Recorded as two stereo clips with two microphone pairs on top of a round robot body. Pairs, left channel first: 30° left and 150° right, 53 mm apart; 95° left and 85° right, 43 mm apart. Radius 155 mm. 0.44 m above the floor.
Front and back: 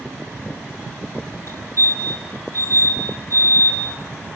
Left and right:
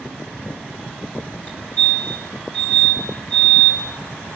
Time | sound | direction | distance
1.5 | a fire alarm | 45° left | 6.5 m